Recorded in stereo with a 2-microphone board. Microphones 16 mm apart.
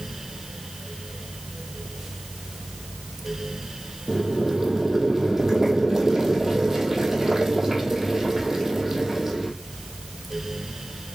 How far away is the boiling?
About 1.0 m.